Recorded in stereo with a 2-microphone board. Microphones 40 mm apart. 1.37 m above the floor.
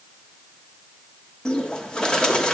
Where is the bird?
20° left (ahead or behind), 1.3 m.